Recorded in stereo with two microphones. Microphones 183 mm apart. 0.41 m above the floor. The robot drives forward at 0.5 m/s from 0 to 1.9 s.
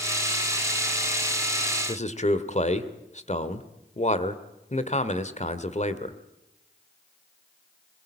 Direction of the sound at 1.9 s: 40° left (ahead or behind).